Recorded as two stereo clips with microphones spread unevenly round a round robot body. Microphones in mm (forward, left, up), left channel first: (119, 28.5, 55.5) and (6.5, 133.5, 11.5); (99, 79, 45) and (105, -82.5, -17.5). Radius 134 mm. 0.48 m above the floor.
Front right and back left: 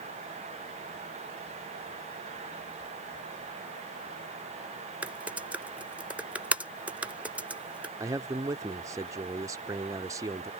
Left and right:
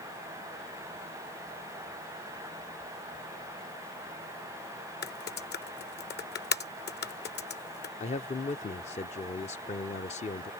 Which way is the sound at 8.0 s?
155° left.